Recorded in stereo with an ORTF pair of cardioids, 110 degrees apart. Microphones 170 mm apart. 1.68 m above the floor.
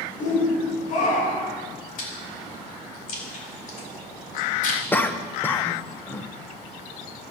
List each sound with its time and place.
0.2 s a shout: 50° left, 6 m; by 1.6 s 60° left, 6.5 m
2.0 s chewing: 55° left, 4.5 m
4.9 s a cough: 10° left, 1.2 m